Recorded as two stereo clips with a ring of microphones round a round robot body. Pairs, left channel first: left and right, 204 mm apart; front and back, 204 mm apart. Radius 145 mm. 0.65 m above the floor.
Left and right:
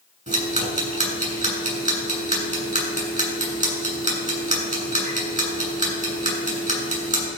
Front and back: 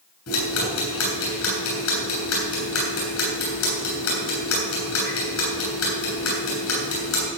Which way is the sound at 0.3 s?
35° right.